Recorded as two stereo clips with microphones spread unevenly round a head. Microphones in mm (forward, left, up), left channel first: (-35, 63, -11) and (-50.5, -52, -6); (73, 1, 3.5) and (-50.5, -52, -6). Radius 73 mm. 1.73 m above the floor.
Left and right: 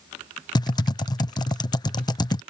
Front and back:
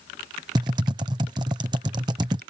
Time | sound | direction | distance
0.6 | typing on a keyboard | 140° left | ?